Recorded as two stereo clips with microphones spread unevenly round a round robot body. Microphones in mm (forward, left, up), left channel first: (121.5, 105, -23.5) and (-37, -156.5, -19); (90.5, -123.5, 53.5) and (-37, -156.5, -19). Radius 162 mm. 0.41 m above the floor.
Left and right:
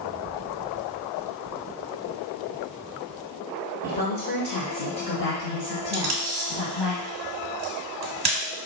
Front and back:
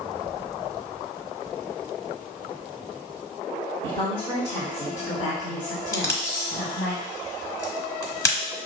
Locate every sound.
3.8 s a woman speaking: 120° left, 0.9 m; by 6.9 s 45° left, 3 m
5.9 s tape being pulled: 90° right, 1.3 m